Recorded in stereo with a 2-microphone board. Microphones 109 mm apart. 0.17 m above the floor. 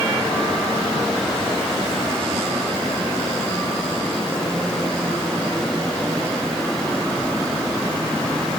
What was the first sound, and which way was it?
Only background noise.